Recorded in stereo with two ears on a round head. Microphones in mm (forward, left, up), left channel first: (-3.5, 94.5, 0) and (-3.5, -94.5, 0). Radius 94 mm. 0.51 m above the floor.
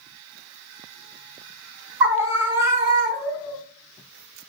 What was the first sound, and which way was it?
A scream, 10° right (ahead or behind).